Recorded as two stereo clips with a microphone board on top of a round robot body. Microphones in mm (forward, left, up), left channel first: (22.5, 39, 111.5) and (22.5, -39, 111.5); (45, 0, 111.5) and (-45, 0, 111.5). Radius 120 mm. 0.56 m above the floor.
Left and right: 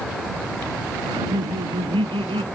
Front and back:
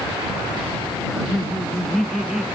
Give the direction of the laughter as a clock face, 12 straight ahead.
3 o'clock.